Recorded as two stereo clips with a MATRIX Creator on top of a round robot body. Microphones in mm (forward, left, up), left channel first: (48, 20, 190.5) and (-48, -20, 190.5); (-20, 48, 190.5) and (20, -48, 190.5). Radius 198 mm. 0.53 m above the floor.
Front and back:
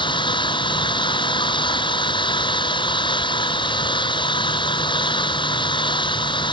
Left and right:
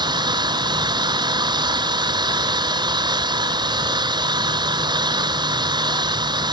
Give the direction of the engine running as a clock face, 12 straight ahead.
1 o'clock.